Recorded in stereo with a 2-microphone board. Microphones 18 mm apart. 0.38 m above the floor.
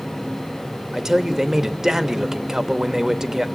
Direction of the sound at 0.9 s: 25° right (ahead or behind).